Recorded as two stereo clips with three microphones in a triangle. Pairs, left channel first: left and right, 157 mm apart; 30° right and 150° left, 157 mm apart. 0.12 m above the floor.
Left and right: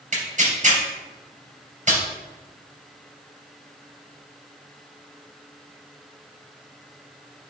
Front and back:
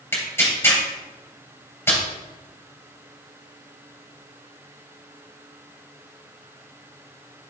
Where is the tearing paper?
100° right, 2.5 m.